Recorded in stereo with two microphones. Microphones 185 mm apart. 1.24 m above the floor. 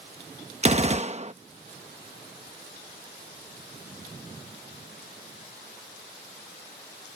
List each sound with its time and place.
0.6 s a gunshot: 35° right (ahead or behind)